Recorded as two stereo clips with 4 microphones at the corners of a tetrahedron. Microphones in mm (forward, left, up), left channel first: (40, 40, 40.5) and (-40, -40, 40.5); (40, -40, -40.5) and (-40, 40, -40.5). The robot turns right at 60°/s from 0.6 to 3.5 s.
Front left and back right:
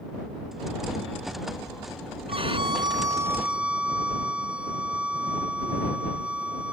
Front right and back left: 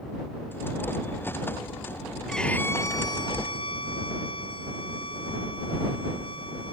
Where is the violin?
130° right; by 6.7 s 60° right.